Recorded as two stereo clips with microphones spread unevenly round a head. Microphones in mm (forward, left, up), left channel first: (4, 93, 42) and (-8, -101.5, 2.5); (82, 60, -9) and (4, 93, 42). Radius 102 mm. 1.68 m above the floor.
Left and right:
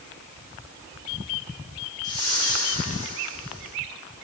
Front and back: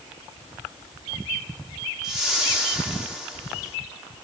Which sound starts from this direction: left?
A whoosh, at 2.0 s.